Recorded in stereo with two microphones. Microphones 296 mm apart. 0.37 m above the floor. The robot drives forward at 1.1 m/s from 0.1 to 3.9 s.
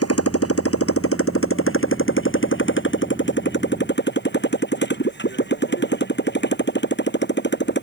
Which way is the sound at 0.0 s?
50° left (ahead or behind).